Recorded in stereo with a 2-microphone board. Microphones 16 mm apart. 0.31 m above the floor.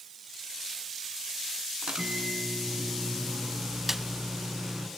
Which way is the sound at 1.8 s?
65° right (ahead or behind).